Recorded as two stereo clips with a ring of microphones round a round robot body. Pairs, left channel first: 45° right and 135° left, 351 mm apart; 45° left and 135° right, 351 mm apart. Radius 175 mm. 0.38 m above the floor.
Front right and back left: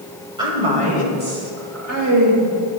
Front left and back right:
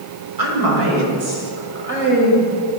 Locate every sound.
0.4 s a woman speaking: 150° right, 1.8 m; by 2.5 s 160° left, 1.7 m